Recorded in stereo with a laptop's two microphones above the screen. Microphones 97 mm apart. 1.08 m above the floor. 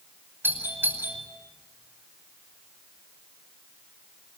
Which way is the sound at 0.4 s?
20° right (ahead or behind).